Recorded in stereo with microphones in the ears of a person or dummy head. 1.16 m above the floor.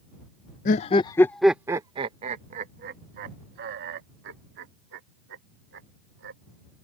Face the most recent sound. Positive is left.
turn(degrees=-65)  # may be behind; listen again after turning